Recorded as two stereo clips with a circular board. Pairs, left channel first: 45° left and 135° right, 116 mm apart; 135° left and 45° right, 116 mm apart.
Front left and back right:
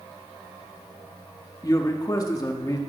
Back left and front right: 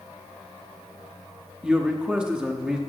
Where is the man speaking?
30° left, 0.9 m.